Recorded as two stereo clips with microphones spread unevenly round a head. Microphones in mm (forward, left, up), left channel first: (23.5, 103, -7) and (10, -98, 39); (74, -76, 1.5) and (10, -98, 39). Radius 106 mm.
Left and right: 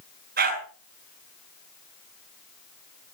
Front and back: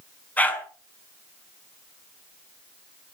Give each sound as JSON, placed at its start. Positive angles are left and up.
{"t": 0.4, "sound": "a dog barking", "azimuth_deg": -55, "distance_m": 5.5}